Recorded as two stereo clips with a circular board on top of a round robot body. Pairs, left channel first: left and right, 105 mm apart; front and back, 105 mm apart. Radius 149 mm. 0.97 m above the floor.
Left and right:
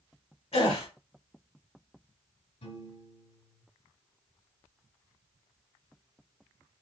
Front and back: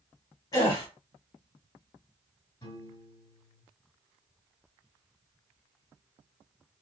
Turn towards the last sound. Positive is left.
turn(degrees=65)